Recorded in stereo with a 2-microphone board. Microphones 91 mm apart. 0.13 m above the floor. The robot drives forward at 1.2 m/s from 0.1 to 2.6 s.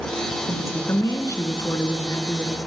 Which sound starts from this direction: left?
A woman speaking, at 0.5 s.